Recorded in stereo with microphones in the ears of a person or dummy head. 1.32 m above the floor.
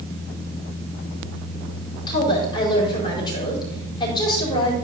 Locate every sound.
2.1 s a woman speaking: 20° left (ahead or behind), 4.5 m